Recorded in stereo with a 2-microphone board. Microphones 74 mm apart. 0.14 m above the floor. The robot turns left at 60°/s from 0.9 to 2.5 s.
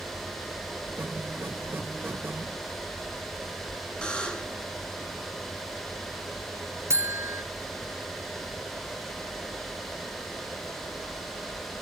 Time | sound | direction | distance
4.0 | a buzzer | 10° left (ahead or behind) | 1.9 m
6.9 | a buzzer | 35° right (ahead or behind) | 0.6 m